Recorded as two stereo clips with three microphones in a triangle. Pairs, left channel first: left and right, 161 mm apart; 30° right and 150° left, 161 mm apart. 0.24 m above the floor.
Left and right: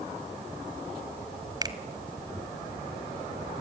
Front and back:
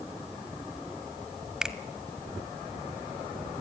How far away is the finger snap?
About 1.3 m.